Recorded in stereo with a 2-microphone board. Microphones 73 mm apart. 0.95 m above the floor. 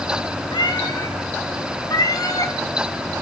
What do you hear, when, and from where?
0.5 s a cat meowing: 80° left, 2.5 m; by 2.5 s 55° left (ahead or behind), 3 m